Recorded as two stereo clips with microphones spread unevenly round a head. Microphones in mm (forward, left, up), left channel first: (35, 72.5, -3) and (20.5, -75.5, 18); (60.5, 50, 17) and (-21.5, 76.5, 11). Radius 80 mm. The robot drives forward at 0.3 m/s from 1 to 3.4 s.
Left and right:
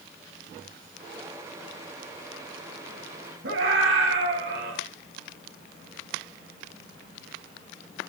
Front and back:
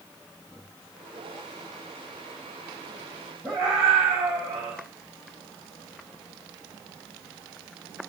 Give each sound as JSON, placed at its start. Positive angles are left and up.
{"t": 3.4, "sound": "a scream", "azimuth_deg": -115, "distance_m": 4.5}